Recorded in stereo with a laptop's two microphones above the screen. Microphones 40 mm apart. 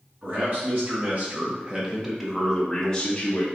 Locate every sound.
0.2 s a man speaking: 55° right (ahead or behind), 1.2 m; by 3.5 s 25° left (ahead or behind), 1.0 m